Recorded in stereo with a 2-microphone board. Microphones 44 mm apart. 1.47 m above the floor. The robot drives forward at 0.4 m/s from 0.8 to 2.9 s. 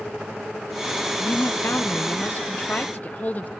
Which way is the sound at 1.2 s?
65° left (ahead or behind).